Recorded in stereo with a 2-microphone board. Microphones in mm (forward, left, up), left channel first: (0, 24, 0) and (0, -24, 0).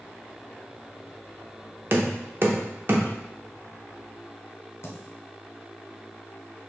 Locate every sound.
1.9 s knocking: 50° right (ahead or behind), 0.6 m
4.8 s a dropped coin: 60° left (ahead or behind), 0.7 m